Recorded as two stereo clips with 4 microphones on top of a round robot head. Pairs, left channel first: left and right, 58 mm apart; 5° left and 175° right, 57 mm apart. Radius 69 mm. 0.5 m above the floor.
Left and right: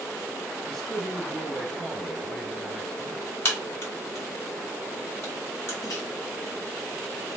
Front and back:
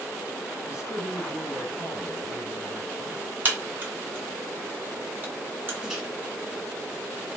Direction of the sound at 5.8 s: 105° left.